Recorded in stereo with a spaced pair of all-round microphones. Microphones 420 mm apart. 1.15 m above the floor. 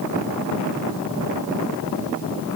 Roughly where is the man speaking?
No man speaking in this recording.